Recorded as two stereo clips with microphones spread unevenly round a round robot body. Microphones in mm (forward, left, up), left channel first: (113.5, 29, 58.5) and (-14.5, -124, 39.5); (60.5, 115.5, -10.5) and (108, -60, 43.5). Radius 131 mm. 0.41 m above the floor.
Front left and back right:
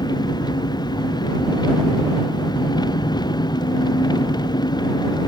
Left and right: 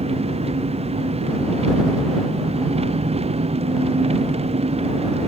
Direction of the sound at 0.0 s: 20° right.